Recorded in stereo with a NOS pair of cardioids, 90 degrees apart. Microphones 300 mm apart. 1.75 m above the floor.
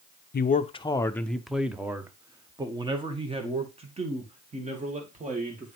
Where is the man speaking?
35° left, 0.7 m; by 5.8 s 25° right, 3.5 m.